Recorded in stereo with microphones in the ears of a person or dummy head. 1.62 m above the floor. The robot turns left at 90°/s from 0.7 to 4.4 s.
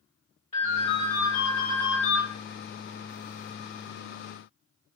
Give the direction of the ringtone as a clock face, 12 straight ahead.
7 o'clock.